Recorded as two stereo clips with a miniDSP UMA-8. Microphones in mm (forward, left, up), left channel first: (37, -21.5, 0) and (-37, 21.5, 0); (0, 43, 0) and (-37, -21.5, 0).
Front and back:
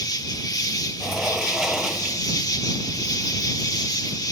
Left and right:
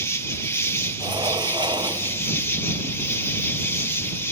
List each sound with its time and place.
0.0 s an insect: 5° left
1.0 s a sliding door: 125° right